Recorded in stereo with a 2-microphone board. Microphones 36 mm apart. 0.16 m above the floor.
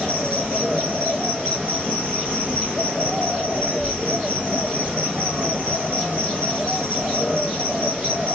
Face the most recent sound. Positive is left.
turn(degrees=-20)  # may be behind; listen again after turning